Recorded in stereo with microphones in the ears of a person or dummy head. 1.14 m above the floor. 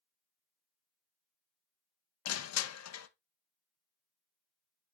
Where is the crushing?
80° left, 0.8 m.